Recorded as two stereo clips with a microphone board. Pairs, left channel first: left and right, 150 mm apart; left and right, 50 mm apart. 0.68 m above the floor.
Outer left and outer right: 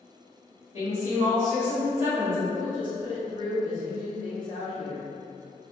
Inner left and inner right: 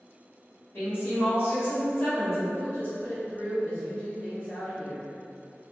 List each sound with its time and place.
0.7 s a woman speaking: 45° left (ahead or behind), 1.7 m
2.5 s a woman speaking: 30° left (ahead or behind), 1.3 m